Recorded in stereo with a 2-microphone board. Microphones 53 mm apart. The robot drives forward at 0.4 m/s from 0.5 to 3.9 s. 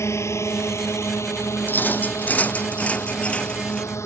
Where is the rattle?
40° left (ahead or behind); by 3.9 s 20° left (ahead or behind).